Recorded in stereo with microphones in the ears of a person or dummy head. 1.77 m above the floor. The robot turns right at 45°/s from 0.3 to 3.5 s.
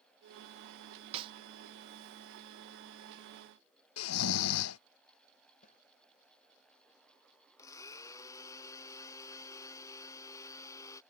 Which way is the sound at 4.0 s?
85° left.